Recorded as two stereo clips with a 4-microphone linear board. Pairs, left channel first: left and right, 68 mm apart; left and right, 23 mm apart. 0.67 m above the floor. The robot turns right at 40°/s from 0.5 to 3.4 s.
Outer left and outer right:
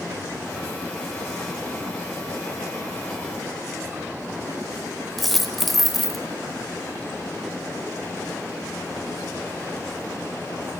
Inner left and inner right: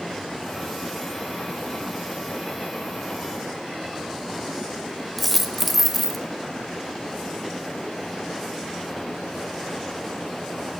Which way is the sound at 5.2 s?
Centre (ahead or behind).